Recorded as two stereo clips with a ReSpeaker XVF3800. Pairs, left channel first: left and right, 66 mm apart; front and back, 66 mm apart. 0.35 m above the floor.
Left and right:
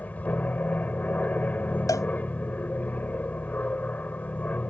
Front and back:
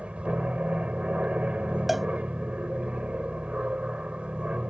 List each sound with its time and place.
0.0 s an aircraft: 130° left
1.9 s a cowbell: 90° left